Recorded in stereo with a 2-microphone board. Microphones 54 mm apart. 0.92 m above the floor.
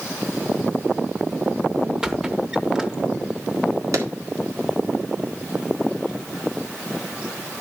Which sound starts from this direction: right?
A clap, at 3.9 s.